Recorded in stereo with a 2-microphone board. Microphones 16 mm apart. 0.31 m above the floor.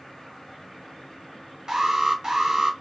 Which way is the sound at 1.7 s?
45° right (ahead or behind).